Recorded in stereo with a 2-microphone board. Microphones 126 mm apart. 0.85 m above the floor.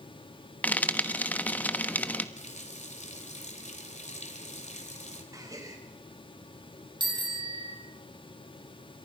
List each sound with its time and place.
0.6 s frying: 15° left (ahead or behind), 1.1 m
2.4 s a running tap: 65° left (ahead or behind), 2.5 m
5.3 s a gasp: 25° right (ahead or behind), 4 m
7.0 s a bicycle bell: 35° right (ahead or behind), 4 m